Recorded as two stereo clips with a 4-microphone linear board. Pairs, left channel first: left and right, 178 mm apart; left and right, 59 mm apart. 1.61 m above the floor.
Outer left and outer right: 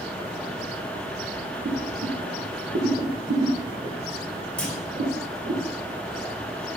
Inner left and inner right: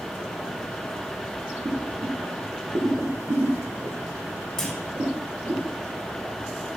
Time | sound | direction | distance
1.6 | boiling | 75° right (ahead or behind) | 1.1 m
4.6 | a clunk | 5° left (ahead or behind) | 1.7 m